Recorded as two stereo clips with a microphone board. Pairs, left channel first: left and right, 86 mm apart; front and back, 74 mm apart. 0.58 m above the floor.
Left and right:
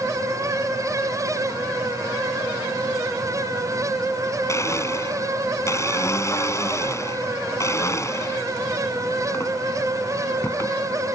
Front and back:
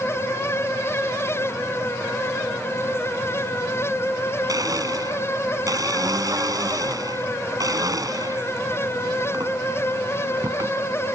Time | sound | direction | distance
4.5 | a blender | 145° left | ?